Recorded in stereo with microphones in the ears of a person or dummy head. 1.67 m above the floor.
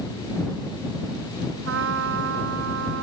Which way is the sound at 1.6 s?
80° right.